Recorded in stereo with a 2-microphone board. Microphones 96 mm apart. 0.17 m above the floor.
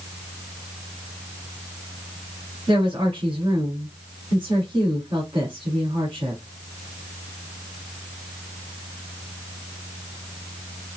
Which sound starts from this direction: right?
A woman speaking, at 2.7 s.